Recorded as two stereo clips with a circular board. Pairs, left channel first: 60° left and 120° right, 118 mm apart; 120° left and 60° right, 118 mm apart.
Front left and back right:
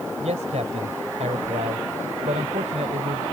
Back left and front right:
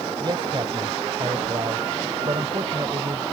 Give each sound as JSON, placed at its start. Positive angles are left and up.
{"t": 0.2, "sound": "a man speaking", "azimuth_deg": -105}